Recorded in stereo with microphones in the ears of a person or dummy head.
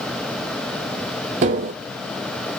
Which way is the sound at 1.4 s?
35° right (ahead or behind).